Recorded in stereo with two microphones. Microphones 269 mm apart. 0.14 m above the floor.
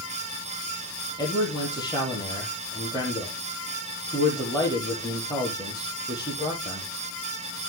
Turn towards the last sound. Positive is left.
turn(degrees=15)  # may be behind; listen again after turning